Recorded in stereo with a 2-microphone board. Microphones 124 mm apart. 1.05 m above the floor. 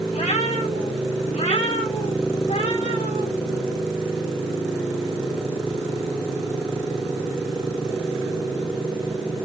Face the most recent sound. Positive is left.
turn(degrees=80)